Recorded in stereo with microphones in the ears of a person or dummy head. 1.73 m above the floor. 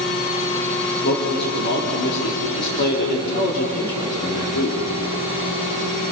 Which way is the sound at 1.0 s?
60° left (ahead or behind).